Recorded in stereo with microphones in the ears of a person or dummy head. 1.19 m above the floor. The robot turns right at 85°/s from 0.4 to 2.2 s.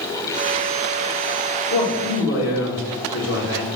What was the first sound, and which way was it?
A man speaking, 60° left.